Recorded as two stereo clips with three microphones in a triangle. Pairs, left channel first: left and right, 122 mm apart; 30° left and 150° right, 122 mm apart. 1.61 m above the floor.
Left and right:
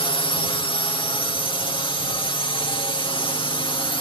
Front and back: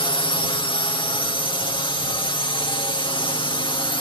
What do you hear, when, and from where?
0.0 s a drone: 60° left